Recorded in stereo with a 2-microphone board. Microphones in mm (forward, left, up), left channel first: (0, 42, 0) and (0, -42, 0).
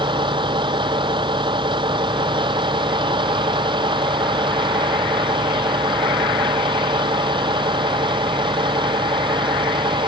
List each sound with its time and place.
0.0 s a vehicle: 65° right (ahead or behind)